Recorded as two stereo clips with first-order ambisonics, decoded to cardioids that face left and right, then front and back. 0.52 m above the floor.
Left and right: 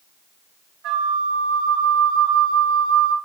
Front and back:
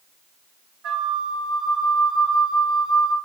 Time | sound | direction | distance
0.8 | a flute | 135° right | 2.5 m